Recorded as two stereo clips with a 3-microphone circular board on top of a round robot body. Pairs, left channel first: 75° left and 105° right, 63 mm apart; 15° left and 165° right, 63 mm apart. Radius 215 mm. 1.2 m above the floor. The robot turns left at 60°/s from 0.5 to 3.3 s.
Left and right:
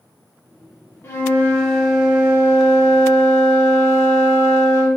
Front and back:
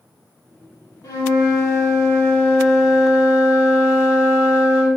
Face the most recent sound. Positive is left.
turn(degrees=-105)